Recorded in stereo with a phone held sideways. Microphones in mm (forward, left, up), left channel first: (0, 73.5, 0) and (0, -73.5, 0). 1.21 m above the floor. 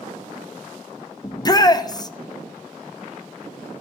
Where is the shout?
25° left (ahead or behind), 0.6 m.